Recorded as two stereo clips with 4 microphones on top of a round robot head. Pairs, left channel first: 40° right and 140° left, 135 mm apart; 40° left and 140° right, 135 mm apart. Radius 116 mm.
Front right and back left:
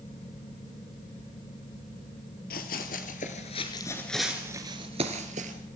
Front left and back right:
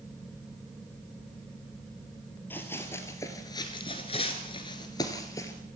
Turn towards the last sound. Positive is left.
turn(degrees=110)